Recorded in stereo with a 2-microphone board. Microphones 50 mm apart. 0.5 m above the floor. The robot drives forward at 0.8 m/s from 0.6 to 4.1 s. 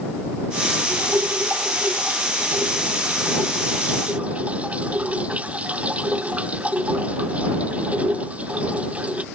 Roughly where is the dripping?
Right.